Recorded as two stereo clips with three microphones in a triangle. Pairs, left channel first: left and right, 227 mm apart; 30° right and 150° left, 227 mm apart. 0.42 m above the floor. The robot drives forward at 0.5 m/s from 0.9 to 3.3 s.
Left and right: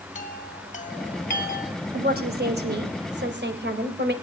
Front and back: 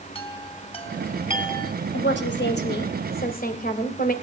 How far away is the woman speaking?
About 2.5 m.